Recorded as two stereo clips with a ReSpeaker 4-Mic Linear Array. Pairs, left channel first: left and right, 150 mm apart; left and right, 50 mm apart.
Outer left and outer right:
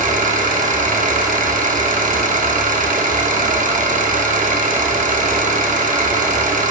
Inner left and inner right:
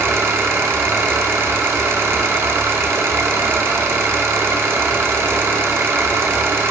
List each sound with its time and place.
0.0 s an engine running: 60° right (ahead or behind), 0.8 m